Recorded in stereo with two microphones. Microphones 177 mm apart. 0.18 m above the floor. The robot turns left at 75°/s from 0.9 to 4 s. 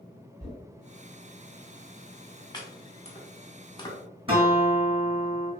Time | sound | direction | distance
0.4 | knocking | 50° left (ahead or behind) | 1.9 m
2.5 | chopping | 25° left (ahead or behind) | 0.7 m
4.3 | a guitar | 30° right (ahead or behind) | 1.3 m